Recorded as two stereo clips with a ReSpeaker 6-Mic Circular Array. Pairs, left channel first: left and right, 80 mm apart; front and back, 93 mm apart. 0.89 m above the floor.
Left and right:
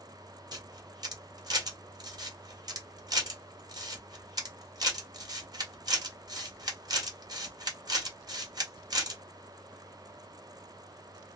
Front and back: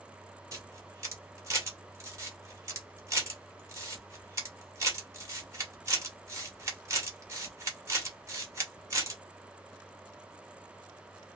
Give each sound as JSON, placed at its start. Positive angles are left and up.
{"t": 0.5, "sound": "a camera shutter", "azimuth_deg": -125, "distance_m": 1.5}